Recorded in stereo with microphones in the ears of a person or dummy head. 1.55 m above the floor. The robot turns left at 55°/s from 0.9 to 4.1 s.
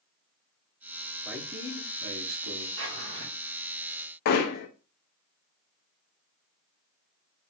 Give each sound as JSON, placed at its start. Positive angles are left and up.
{"t": 1.2, "sound": "a man speaking", "azimuth_deg": 0, "distance_m": 1.3}
{"t": 2.8, "sound": "a drawer", "side_deg": -70, "distance_m": 2.5}
{"t": 4.2, "sound": "hammering", "side_deg": 60, "distance_m": 0.7}